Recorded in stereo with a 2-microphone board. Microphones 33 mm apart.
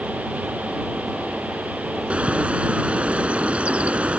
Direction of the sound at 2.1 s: 45° right (ahead or behind).